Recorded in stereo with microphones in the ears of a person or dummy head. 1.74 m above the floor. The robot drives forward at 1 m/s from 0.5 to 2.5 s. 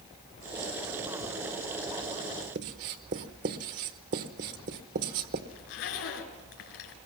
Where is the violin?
I don't hear a violin.